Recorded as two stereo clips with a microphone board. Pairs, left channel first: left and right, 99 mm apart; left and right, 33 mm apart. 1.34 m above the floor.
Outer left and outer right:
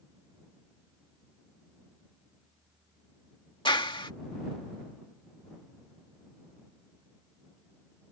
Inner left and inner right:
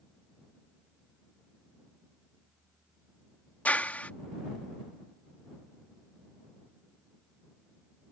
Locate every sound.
3.6 s a clap: 55° left (ahead or behind)